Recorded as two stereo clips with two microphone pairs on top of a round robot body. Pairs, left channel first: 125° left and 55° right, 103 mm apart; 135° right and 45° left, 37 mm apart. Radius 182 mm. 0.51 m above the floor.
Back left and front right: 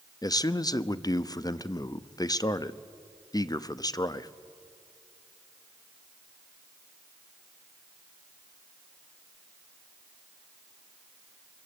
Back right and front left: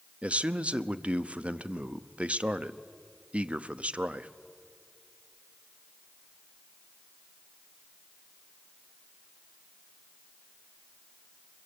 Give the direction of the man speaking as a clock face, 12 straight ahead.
9 o'clock.